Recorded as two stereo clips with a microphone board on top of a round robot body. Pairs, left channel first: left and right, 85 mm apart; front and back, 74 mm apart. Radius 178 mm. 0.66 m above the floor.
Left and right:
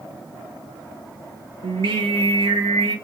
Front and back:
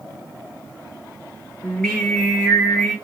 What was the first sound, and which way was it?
Singing, 80° right.